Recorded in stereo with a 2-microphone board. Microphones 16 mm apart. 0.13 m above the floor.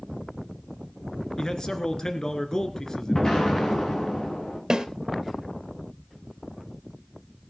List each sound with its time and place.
1.4 s a man speaking: 40° left (ahead or behind), 1.9 m
3.1 s an explosion: 55° left (ahead or behind), 6 m
4.7 s a snare drum: 45° right (ahead or behind), 2.5 m